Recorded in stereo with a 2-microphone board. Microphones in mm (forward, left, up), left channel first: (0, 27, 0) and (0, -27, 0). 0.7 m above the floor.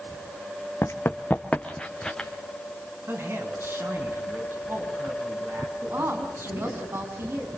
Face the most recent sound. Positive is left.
turn(degrees=-50)  # may be behind; listen again after turning